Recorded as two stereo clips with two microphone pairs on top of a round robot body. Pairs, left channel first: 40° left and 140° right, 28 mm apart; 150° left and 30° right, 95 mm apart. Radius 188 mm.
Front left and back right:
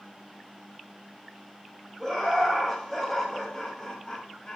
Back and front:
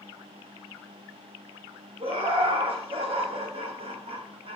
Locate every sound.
2.0 s laughter: 45° right, 4 m; by 4.6 s 25° right, 2.5 m